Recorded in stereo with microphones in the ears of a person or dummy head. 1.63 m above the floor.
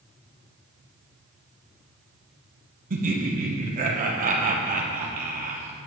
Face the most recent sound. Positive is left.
turn(degrees=-40)  # may be behind; listen again after turning